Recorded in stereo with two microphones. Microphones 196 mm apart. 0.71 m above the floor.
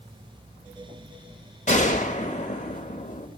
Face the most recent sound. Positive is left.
turn(degrees=40)  # may be behind; listen again after turning